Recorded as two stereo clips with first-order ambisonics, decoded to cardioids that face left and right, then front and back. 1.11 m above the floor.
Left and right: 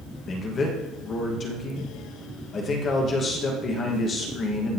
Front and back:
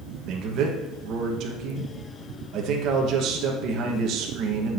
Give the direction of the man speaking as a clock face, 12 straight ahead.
7 o'clock.